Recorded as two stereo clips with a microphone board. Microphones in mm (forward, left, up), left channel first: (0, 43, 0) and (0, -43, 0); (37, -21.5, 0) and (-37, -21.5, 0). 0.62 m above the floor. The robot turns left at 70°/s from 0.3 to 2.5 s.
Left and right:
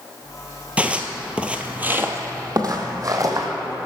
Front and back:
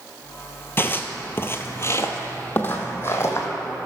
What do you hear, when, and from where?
0.8 s footsteps: 25° right, 0.7 m; by 3.5 s 50° right, 1.4 m